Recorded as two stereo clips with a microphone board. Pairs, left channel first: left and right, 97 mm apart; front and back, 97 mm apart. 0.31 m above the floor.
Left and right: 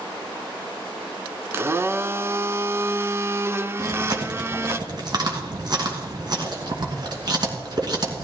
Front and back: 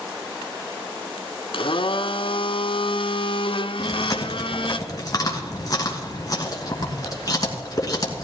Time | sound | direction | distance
1.5 | a blender | 25° right | 0.8 m
3.8 | chewing | 50° right | 2.5 m